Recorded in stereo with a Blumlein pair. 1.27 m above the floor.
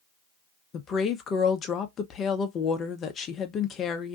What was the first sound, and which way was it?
A woman speaking, 25° left.